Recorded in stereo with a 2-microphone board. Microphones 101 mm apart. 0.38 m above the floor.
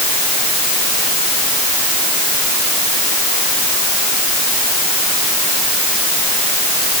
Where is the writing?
I don't hear writing.